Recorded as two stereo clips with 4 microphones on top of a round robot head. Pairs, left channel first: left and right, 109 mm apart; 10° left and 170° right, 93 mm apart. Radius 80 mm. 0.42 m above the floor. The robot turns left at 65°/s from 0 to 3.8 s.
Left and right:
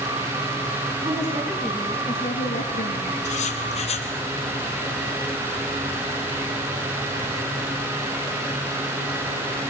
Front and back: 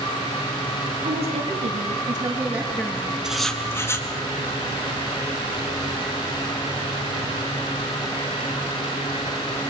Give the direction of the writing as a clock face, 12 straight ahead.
8 o'clock.